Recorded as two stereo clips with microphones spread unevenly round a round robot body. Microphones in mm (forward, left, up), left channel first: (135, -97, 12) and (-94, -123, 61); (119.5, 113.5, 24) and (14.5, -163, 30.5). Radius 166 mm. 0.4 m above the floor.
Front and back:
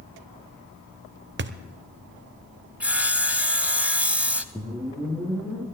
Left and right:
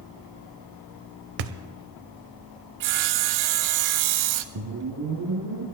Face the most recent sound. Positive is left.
turn(degrees=-90)